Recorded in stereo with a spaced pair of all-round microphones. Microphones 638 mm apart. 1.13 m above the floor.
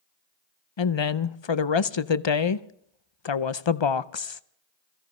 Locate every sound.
0.8 s a woman speaking: 50° left (ahead or behind), 0.6 m